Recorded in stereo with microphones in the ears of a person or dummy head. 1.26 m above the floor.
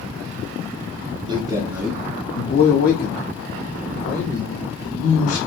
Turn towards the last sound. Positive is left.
turn(degrees=65)  # may be behind; listen again after turning